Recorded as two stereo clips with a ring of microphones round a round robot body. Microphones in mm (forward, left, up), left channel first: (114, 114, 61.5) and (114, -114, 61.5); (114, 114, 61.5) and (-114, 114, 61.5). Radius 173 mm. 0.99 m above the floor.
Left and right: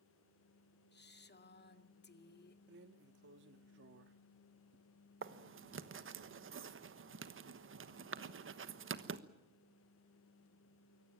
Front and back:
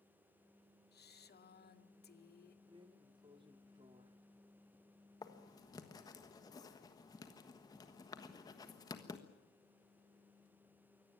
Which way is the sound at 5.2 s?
75° right.